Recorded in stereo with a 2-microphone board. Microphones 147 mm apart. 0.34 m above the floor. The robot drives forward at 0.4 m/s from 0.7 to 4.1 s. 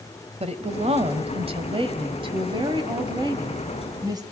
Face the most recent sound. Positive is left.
turn(degrees=-25)  # may be behind; listen again after turning